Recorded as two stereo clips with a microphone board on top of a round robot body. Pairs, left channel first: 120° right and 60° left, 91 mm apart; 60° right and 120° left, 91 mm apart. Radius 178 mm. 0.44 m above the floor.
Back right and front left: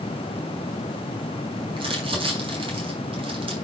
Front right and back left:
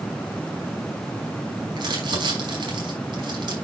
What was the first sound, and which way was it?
Crumpling, 85° left.